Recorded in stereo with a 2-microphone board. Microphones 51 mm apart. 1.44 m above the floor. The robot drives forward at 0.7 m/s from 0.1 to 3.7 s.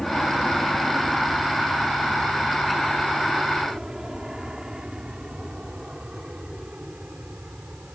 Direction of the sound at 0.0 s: 5° left (ahead or behind).